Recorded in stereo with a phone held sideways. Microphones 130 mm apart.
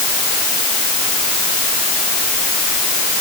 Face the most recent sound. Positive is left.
No sound to turn to.